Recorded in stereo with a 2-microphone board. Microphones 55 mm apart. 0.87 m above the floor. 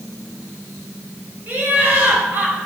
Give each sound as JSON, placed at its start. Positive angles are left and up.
{"t": 1.5, "sound": "laughter", "side_deg": -40, "distance_m": 2.5}